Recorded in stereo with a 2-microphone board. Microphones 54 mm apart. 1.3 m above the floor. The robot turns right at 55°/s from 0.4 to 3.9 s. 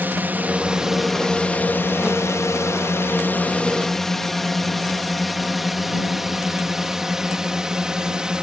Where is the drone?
35° right (ahead or behind); by 8.4 s 15° right (ahead or behind).